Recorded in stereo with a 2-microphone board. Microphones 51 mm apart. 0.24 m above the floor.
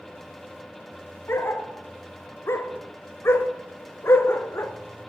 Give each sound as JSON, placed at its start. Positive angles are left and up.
{"t": 1.3, "sound": "a dog barking", "side_deg": 60, "distance_m": 0.7}